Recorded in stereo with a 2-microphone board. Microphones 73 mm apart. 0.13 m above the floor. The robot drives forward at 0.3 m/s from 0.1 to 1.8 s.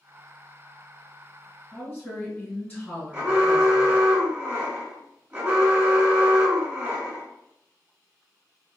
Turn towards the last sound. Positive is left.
turn(degrees=-15)  # may be behind; listen again after turning